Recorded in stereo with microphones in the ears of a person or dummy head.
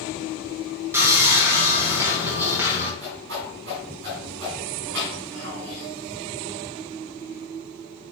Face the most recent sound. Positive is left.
turn(degrees=-60)  # may be behind; listen again after turning